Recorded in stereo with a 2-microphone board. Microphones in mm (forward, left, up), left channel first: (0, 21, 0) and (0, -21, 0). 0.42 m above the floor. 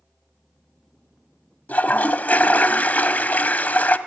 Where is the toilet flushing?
40° left (ahead or behind), 0.6 m.